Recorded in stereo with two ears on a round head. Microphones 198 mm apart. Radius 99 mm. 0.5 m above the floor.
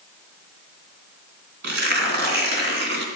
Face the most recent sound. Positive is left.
turn(degrees=-50)  # may be behind; listen again after turning